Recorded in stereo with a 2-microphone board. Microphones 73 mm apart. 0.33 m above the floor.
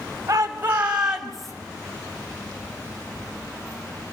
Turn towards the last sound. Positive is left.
turn(degrees=5)  # may be behind; listen again after turning